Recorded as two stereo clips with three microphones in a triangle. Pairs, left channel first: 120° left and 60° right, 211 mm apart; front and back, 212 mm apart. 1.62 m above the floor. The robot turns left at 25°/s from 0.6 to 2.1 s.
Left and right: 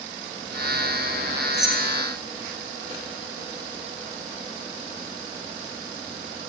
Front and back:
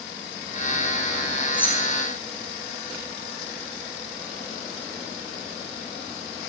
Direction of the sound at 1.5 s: 85° left.